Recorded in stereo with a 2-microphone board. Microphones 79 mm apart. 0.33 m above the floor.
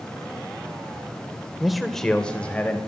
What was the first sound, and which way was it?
A man speaking, centre (ahead or behind).